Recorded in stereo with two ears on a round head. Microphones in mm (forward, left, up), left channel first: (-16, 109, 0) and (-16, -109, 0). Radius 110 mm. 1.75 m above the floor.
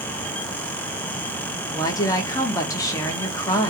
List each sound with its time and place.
1.7 s a woman speaking: 15° left (ahead or behind), 0.7 m